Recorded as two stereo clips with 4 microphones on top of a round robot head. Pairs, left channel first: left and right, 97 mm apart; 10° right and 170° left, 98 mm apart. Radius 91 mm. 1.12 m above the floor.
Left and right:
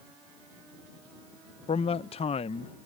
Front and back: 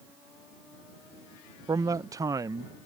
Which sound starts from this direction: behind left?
A man speaking, at 1.7 s.